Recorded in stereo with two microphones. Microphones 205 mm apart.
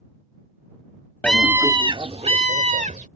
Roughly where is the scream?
Centre.